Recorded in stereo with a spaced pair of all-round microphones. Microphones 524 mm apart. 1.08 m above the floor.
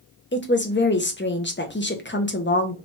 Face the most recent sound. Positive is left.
turn(degrees=20)  # may be behind; listen again after turning